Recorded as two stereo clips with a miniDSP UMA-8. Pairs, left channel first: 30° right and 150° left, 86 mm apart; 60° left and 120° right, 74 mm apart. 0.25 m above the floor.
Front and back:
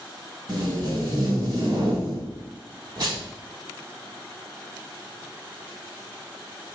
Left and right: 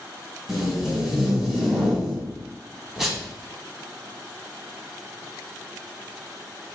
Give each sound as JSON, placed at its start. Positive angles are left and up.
{"t": 0.5, "sound": "tape being pulled", "azimuth_deg": 155, "distance_m": 1.2}